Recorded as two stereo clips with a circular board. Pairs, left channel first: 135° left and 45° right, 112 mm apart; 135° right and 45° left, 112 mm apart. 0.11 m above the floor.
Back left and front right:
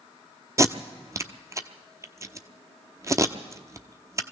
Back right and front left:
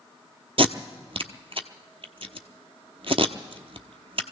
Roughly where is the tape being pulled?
Ahead.